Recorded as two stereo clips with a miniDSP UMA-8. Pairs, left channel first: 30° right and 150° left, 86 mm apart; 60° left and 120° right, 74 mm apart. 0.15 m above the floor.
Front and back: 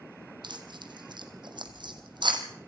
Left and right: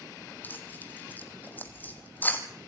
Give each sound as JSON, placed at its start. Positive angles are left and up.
{"t": 0.4, "sound": "tearing paper", "azimuth_deg": 125, "distance_m": 2.5}